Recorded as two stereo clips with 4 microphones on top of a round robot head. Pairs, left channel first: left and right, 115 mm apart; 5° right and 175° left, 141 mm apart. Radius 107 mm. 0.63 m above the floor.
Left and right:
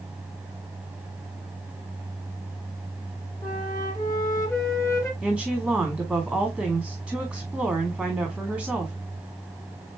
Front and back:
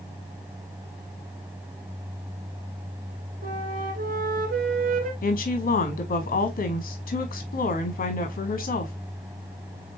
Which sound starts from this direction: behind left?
A flute, at 3.4 s.